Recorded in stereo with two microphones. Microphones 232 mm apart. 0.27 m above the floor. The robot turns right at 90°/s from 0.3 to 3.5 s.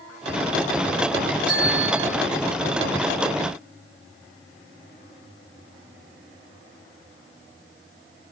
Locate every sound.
1.5 s a bell: 165° right, 2.5 m; by 2.1 s 105° right, 2.5 m